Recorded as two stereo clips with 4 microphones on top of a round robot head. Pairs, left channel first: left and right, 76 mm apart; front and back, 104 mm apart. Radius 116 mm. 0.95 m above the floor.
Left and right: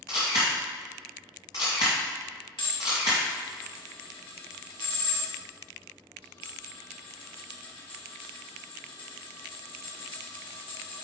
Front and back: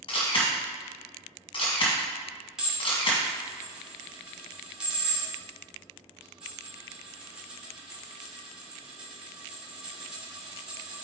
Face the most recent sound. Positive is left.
turn(degrees=95)